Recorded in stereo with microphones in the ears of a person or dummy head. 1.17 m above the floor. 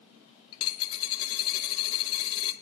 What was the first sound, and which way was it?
A dropped coin, 30° left (ahead or behind).